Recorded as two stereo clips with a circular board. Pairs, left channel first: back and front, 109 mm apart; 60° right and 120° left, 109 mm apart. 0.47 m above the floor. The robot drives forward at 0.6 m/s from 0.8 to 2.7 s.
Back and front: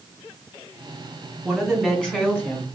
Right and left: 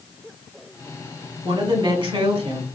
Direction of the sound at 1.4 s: 85° left.